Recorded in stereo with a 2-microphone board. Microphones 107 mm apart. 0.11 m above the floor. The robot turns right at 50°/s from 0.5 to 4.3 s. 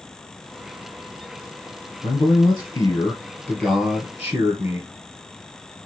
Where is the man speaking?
105° left, 2.5 m; by 4.9 s 140° right, 2.5 m.